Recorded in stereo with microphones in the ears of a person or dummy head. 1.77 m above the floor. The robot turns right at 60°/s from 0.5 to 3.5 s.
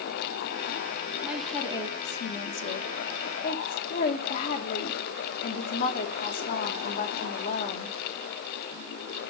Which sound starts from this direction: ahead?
A woman speaking, at 1.2 s.